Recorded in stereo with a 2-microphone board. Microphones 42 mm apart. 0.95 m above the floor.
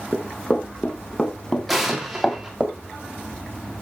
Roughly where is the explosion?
Centre.